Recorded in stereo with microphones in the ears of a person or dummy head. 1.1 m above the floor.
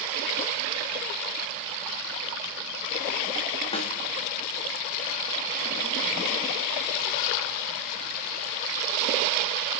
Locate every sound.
3.7 s a snare drum: 35° left (ahead or behind), 1.2 m